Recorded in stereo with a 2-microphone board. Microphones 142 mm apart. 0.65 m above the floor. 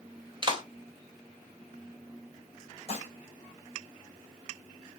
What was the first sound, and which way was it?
A clap, 30° right (ahead or behind).